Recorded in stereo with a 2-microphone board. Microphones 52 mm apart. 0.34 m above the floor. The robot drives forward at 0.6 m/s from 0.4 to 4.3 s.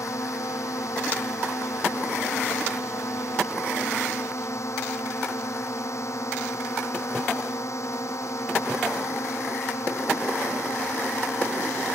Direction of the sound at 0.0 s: 70° left (ahead or behind).